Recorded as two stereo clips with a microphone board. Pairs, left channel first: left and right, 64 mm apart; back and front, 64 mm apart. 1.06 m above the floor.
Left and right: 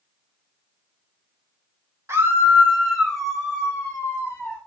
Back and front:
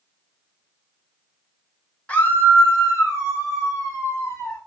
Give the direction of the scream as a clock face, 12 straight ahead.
4 o'clock.